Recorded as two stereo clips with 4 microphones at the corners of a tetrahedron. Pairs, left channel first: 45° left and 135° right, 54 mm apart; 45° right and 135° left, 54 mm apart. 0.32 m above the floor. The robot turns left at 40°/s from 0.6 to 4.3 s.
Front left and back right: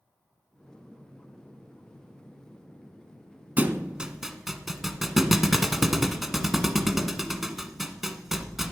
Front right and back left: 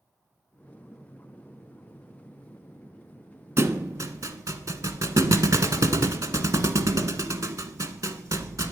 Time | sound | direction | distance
3.6 | a thud | 170° left | 1.1 m